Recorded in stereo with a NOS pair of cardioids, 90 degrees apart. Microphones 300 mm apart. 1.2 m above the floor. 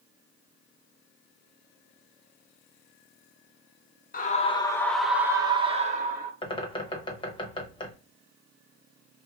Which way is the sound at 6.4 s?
15° left.